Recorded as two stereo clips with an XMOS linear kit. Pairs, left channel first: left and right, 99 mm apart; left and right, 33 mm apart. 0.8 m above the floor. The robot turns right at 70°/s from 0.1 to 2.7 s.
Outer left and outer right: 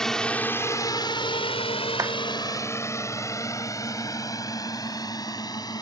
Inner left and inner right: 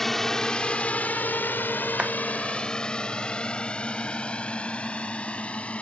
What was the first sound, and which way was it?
A drone, 5° left (ahead or behind).